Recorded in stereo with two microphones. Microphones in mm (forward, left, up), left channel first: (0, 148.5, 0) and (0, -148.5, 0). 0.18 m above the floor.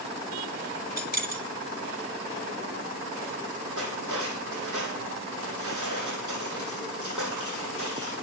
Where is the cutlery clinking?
80° right, 5 m.